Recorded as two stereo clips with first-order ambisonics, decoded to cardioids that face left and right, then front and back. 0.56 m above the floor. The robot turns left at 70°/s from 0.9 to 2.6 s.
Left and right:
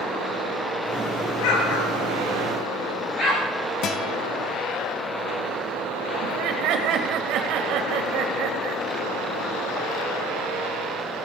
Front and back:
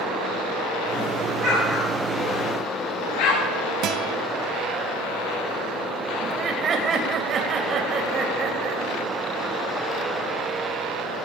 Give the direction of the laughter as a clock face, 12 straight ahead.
4 o'clock.